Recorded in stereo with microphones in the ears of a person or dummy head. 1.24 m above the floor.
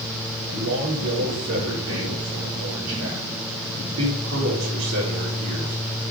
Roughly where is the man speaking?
Right.